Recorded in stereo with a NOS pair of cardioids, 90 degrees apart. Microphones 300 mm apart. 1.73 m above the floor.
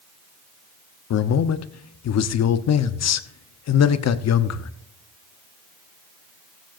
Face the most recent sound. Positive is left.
turn(degrees=60)